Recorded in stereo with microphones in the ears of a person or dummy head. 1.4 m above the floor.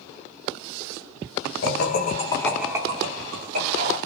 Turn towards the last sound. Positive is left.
turn(degrees=-55)  # may be behind; listen again after turning